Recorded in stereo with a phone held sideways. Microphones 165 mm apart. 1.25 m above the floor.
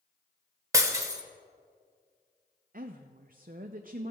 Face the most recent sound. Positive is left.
turn(degrees=-60)  # may be behind; listen again after turning